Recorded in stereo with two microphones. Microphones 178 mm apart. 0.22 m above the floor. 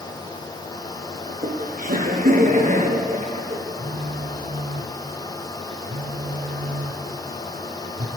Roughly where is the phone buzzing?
Right.